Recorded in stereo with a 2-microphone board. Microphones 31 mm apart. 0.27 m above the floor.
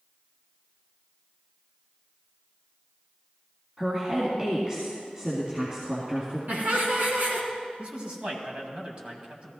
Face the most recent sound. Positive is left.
turn(degrees=-35)  # may be behind; listen again after turning